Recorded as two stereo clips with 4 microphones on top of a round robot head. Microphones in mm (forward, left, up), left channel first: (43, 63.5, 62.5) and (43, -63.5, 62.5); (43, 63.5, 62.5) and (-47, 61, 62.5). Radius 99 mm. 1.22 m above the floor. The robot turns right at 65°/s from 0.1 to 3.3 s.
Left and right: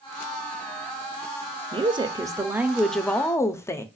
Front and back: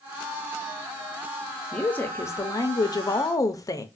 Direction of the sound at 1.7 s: 75° right.